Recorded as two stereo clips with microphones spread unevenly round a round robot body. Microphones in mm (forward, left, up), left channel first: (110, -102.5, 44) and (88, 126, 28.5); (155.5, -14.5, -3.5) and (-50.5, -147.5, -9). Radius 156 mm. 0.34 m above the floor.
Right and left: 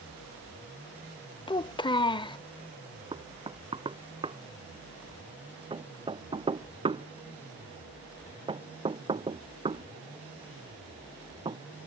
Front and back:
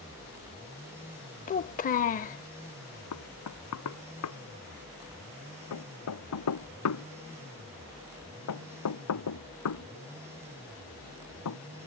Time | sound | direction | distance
1.5 | a child speaking | 15° right | ?
3.1 | knocking | 30° left | ?